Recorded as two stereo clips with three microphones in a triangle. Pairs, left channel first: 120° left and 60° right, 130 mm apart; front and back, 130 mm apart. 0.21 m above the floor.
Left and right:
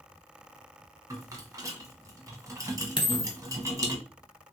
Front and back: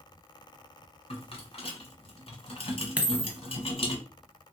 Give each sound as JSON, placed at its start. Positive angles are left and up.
{"t": 1.1, "sound": "a rattle", "azimuth_deg": -5, "distance_m": 0.8}
{"t": 3.0, "sound": "a dropped coin", "azimuth_deg": 105, "distance_m": 0.7}